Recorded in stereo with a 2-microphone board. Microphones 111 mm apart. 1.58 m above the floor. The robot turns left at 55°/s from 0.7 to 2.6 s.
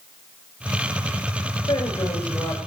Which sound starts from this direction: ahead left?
A woman speaking, at 1.7 s.